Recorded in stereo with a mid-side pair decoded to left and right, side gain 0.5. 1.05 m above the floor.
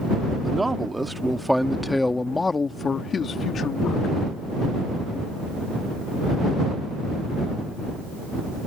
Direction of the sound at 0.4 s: 20° right.